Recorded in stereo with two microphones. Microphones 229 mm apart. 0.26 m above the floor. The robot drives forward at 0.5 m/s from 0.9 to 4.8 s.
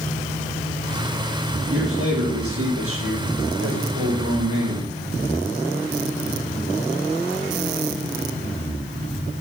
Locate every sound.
1.7 s a man speaking: 75° right (ahead or behind), 6.5 m; by 4.9 s 65° right (ahead or behind), 6.5 m